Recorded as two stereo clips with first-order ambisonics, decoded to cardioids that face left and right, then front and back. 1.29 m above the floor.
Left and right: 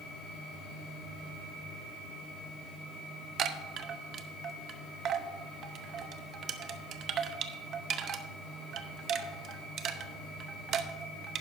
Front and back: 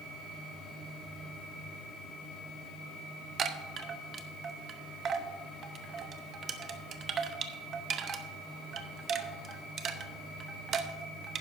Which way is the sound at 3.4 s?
130° right.